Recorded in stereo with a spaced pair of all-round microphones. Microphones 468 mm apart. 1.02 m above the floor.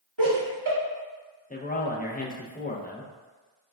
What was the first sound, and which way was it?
Laughter, 80° right.